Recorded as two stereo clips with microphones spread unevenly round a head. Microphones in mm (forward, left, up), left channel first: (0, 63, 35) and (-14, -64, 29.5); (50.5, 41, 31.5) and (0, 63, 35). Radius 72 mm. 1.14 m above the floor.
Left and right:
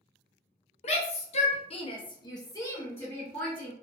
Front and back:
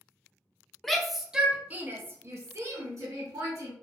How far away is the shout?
About 0.8 m.